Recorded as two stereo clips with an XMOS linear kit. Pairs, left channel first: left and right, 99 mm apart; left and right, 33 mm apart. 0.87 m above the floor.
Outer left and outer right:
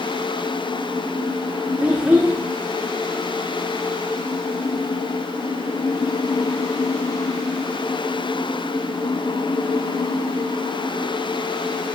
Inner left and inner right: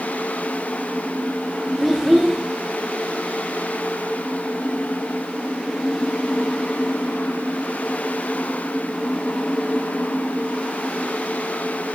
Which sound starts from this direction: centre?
A child speaking, at 1.8 s.